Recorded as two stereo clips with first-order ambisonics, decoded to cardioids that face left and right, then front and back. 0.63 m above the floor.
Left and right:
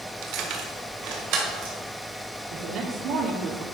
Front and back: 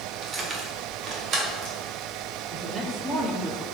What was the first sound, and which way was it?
Keys jangling, 115° right.